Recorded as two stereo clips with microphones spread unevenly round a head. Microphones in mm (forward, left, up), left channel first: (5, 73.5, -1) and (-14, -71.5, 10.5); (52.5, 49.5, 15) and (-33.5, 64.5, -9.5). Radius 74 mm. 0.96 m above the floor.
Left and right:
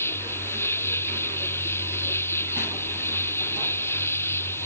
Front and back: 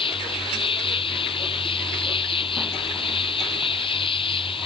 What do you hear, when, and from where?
0.0 s an insect: 5° left